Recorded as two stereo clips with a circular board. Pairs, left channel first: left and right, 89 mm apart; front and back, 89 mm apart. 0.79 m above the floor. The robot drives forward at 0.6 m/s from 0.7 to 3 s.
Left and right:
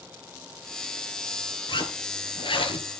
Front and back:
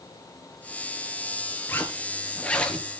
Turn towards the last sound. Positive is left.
turn(degrees=80)